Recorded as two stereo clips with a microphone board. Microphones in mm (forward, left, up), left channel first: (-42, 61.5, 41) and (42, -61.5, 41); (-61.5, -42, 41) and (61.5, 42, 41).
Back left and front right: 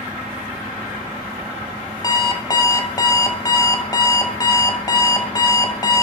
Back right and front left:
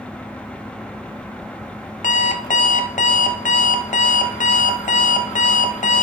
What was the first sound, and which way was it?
An alarm clock, 175° right.